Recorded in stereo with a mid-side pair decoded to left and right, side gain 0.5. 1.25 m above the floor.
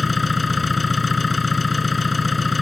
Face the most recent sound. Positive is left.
turn(degrees=20)